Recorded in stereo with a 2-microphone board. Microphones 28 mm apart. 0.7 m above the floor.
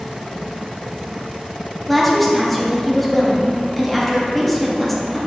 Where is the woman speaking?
5° left (ahead or behind), 0.7 m.